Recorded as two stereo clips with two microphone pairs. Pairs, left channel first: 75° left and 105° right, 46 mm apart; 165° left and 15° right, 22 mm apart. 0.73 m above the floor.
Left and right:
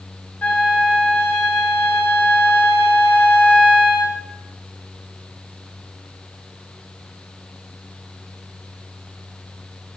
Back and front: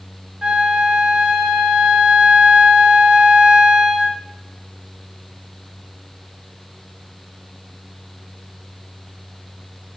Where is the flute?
35° left, 0.6 m.